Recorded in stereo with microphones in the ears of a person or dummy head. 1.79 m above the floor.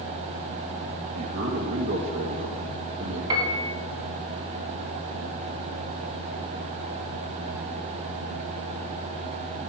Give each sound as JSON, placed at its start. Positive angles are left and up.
{"t": 1.2, "sound": "a man speaking", "side_deg": -60, "distance_m": 1.5}
{"t": 3.3, "sound": "a piano", "side_deg": -25, "distance_m": 2.0}